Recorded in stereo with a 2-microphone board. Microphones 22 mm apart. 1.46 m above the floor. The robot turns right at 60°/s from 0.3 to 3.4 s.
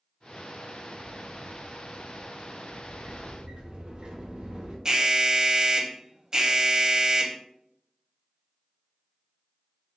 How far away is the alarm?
About 0.6 m.